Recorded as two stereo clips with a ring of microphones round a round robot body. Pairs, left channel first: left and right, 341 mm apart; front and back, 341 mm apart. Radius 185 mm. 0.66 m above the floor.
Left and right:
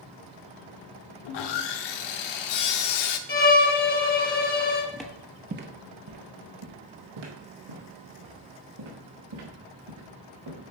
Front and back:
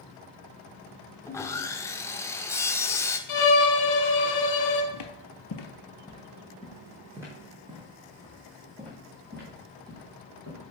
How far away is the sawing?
About 0.7 m.